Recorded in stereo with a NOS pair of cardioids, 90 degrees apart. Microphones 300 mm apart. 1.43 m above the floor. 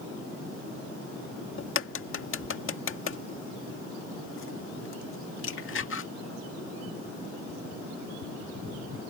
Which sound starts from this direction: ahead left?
A crack, at 1.6 s.